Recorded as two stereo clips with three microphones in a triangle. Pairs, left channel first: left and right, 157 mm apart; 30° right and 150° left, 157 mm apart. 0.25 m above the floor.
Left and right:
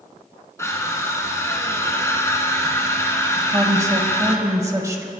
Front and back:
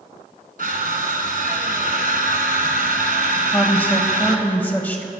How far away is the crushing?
About 1.4 m.